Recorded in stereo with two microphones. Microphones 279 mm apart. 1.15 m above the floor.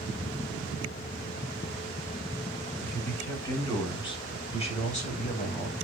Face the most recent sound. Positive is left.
turn(degrees=35)  # may be behind; listen again after turning